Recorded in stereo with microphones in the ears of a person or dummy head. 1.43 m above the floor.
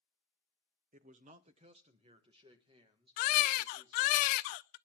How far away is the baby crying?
About 0.5 m.